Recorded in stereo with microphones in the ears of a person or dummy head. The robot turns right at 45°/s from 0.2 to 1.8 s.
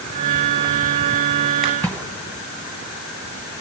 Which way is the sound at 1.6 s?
Centre (ahead or behind).